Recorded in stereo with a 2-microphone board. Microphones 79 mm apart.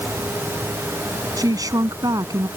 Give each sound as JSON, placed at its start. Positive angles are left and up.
{"t": 1.4, "sound": "a woman speaking", "side_deg": -50}